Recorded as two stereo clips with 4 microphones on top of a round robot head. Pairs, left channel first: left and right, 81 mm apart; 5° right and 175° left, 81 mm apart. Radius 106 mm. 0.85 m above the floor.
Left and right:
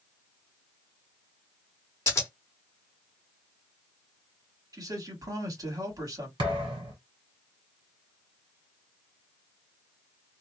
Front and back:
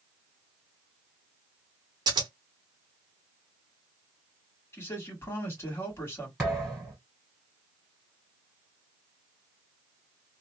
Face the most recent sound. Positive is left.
turn(degrees=-100)